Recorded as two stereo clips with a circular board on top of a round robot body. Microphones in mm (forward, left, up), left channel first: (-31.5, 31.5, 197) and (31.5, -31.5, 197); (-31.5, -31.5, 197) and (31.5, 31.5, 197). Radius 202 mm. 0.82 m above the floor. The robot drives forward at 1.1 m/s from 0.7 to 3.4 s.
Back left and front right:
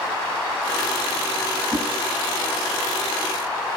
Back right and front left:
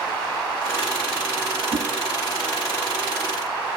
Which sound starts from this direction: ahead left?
A whoosh, at 1.7 s.